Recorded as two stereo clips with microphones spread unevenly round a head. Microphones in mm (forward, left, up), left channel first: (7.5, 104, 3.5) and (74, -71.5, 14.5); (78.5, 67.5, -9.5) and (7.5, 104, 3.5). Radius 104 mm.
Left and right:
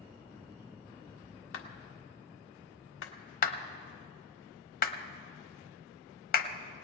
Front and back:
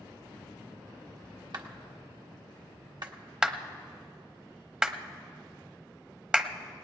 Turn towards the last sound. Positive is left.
turn(degrees=70)